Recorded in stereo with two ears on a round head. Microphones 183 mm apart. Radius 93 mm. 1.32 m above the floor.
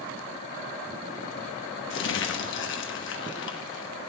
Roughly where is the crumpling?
Left.